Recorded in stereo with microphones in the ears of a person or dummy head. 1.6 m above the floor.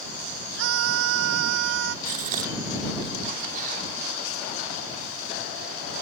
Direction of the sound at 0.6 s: 80° right.